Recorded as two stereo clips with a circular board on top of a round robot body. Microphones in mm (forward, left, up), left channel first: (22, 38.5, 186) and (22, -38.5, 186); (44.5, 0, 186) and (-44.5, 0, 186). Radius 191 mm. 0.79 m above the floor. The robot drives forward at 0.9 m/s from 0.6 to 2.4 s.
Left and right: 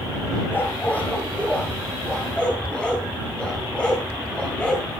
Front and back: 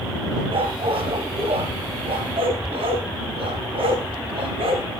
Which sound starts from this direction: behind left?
A dog barking, at 0.5 s.